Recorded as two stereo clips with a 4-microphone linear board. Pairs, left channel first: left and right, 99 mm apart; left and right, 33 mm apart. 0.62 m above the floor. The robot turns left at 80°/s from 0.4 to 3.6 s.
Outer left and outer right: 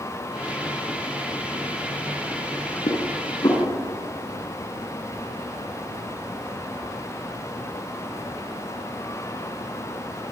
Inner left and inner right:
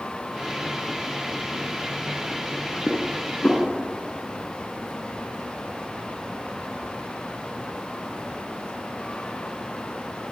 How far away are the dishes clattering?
About 4.5 m.